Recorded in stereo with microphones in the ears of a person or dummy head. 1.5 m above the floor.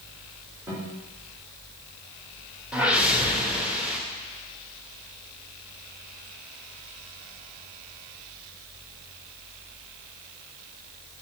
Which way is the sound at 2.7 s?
5° right (ahead or behind).